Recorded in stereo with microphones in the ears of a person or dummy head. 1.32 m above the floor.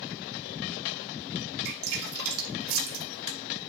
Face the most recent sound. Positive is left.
turn(degrees=-85)